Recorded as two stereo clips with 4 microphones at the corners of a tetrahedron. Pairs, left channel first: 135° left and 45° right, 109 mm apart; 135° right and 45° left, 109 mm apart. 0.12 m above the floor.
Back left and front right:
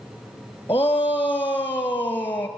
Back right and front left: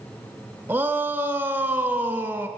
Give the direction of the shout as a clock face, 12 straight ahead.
9 o'clock.